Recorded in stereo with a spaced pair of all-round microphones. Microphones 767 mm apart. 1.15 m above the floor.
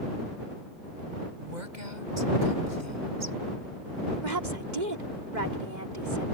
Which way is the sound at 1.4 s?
70° right (ahead or behind).